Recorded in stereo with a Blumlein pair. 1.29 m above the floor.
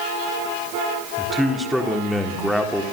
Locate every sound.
1.2 s a man speaking: straight ahead, 3.5 m